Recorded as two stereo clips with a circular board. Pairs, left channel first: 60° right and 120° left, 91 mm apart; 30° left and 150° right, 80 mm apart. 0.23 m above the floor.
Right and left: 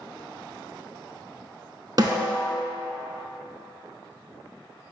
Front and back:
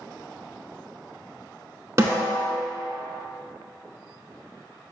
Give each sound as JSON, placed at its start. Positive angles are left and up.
{"t": 2.0, "sound": "a snare drum", "azimuth_deg": 160, "distance_m": 0.8}